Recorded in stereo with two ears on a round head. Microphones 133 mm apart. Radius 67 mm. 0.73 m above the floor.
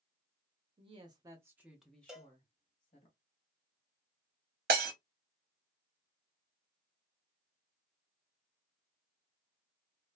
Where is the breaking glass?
70° right (ahead or behind), 0.9 m.